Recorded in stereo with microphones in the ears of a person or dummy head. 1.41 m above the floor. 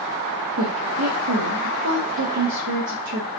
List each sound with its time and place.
0.6 s a woman speaking: 75° right (ahead or behind), 0.6 m